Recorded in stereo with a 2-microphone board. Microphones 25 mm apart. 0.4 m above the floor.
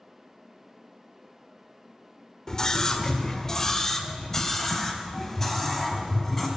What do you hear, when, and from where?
2.5 s a scream: 25° left (ahead or behind), 1.3 m; by 6.5 s 15° left (ahead or behind), 3.5 m